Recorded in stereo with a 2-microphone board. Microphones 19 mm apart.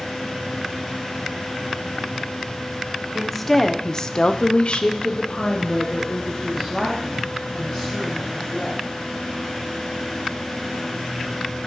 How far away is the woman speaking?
About 1.1 m.